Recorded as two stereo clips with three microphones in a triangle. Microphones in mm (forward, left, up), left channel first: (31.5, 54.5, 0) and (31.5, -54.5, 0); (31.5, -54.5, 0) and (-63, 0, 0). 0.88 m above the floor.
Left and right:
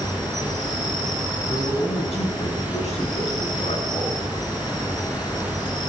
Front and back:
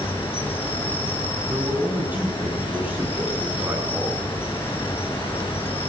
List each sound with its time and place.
0.0 s an insect: 35° left, 3.5 m
1.5 s a man speaking: 75° left, 8.5 m